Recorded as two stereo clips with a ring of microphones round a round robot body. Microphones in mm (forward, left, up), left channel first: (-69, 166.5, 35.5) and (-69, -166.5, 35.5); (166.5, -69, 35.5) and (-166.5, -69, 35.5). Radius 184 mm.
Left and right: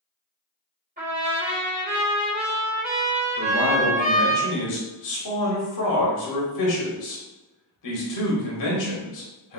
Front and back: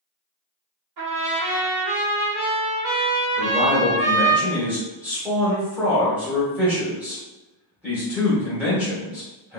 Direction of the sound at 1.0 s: 155° right.